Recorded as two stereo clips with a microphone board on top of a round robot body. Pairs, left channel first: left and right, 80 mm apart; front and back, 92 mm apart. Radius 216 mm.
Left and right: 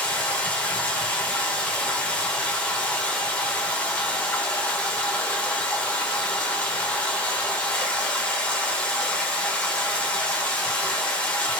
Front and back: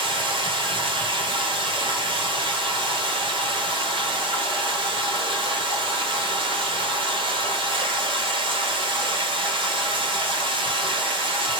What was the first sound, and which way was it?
Running water, 165° left.